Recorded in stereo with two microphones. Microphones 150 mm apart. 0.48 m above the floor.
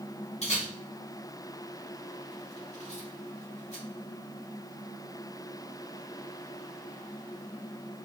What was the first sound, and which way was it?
A camera shutter, 45° left (ahead or behind).